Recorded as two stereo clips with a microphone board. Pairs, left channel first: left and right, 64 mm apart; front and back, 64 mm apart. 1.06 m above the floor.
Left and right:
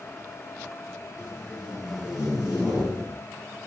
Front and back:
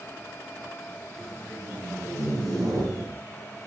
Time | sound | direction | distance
1.2 | tape being pulled | 165° right | 8.5 m